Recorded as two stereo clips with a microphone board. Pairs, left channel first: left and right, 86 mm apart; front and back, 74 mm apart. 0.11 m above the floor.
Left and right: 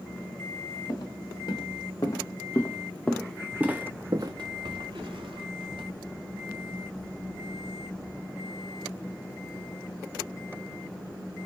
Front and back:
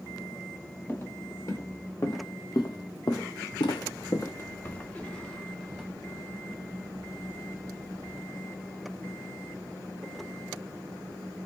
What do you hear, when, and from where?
0.9 s footsteps: 50° left, 1.9 m; by 5.8 s 85° right, 1.5 m